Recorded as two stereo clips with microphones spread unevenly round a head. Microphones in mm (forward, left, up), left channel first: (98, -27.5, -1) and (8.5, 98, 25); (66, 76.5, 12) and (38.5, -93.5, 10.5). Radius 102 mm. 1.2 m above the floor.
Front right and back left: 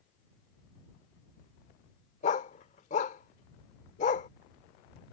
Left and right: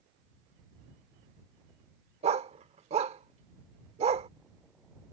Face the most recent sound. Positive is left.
turn(degrees=-80)